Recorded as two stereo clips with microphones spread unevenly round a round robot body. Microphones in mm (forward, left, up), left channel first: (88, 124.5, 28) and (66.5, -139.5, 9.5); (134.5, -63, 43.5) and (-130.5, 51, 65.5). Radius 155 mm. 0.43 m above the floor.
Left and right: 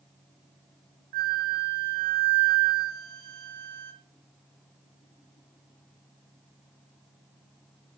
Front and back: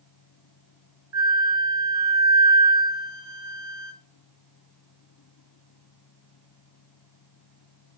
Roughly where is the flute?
Behind right.